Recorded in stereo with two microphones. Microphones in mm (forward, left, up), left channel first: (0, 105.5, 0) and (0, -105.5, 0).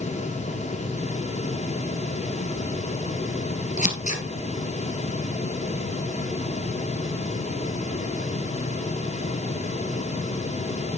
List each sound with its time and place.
3.8 s scissors: 35° left (ahead or behind), 1.9 m